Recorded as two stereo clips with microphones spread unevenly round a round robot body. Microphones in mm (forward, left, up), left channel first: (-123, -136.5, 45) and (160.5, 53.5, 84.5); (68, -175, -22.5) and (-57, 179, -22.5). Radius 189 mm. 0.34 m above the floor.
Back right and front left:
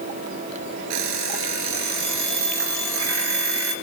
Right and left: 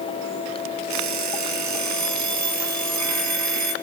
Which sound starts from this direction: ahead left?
An alarm clock, at 0.9 s.